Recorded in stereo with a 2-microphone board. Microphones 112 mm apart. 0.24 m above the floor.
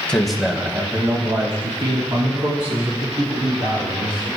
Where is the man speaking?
10° left (ahead or behind), 1.3 m; by 4.3 s 70° right (ahead or behind), 4 m.